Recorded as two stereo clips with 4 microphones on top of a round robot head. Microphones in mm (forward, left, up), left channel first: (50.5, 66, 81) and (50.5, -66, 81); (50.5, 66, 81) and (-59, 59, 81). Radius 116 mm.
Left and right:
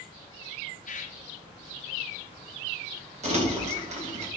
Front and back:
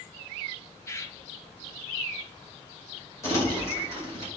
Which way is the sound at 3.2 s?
60° right.